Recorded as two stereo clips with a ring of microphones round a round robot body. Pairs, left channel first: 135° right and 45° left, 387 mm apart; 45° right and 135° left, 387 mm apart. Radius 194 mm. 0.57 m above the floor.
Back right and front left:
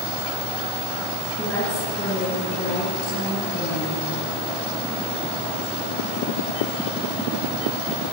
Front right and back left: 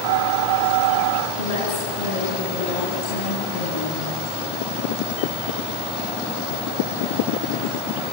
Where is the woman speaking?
50° right, 6 m; by 4.1 s 70° right, 6 m.